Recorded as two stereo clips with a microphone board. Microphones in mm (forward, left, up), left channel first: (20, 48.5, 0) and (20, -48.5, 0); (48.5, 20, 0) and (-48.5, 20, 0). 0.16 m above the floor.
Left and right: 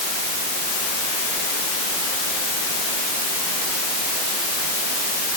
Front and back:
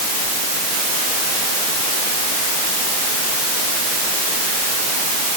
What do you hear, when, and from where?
Only background noise.